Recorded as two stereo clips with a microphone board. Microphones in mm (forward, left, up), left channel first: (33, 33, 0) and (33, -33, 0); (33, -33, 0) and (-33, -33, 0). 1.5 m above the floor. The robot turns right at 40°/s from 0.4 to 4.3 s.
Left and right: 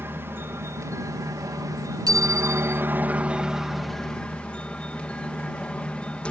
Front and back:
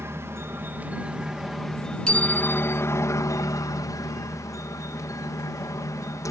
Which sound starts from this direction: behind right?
A helicopter, at 0.0 s.